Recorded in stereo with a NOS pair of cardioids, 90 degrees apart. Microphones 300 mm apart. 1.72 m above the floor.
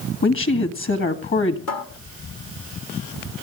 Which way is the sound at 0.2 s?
40° left.